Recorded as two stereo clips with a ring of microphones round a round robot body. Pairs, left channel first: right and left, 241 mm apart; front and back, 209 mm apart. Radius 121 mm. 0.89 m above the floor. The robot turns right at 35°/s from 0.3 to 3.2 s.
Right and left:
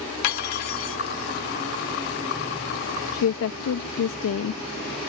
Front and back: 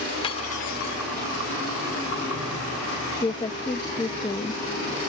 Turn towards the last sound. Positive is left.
turn(degrees=-70)